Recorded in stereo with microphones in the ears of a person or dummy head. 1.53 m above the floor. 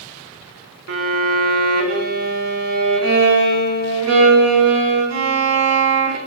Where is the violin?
70° right (ahead or behind), 2.5 m.